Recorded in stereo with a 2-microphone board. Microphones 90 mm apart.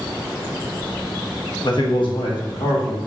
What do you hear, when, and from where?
1.6 s a man speaking: 55° left (ahead or behind), 0.8 m; by 3.0 s 75° left (ahead or behind), 1.5 m